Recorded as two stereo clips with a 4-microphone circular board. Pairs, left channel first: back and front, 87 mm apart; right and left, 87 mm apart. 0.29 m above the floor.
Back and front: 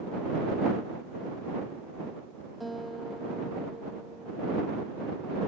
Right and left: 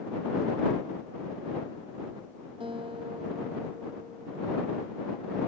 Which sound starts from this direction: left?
A guitar, at 2.6 s.